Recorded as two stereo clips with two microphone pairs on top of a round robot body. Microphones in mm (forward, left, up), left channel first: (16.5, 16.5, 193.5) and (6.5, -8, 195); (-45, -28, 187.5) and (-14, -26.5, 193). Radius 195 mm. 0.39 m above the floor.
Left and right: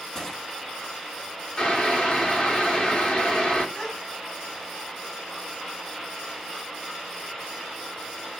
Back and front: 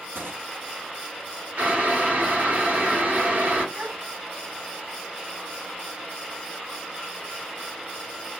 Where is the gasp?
10° right, 3 m.